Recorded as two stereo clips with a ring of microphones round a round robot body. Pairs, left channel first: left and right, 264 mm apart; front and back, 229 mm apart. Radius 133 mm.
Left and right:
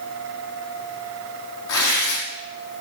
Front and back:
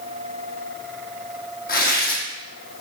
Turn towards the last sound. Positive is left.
turn(degrees=50)